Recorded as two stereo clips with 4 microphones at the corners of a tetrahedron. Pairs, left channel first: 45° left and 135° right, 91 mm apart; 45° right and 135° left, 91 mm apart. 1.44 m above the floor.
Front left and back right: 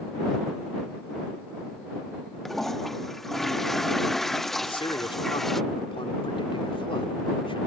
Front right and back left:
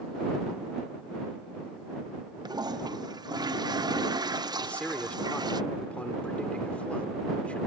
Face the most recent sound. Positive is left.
turn(degrees=30)